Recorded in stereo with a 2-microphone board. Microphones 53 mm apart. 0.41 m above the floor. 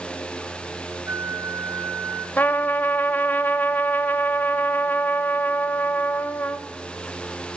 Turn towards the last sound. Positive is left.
turn(degrees=35)  # may be behind; listen again after turning